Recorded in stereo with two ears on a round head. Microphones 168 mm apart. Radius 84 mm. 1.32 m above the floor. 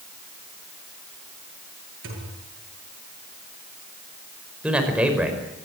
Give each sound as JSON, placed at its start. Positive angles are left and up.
{"t": 2.0, "sound": "a thud", "side_deg": -75, "distance_m": 8.5}
{"t": 4.6, "sound": "a man speaking", "side_deg": -5, "distance_m": 5.5}